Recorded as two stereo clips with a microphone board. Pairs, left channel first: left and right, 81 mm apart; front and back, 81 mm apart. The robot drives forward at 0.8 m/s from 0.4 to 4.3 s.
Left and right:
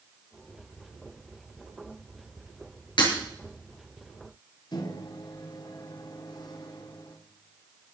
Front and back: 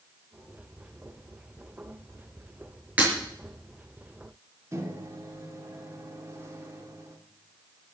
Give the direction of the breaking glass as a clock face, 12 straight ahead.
8 o'clock.